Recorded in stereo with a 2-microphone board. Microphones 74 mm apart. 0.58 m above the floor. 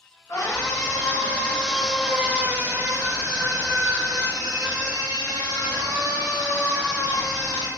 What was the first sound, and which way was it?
A scream, 55° left (ahead or behind).